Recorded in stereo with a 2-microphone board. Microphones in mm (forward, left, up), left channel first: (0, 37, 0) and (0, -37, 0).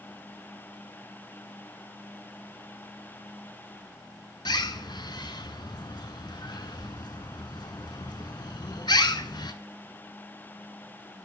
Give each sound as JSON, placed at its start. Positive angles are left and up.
{"t": 4.5, "sound": "a bird", "side_deg": 80, "distance_m": 0.7}